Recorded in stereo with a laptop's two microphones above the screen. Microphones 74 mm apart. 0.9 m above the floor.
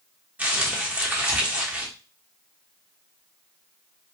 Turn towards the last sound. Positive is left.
turn(degrees=-20)  # may be behind; listen again after turning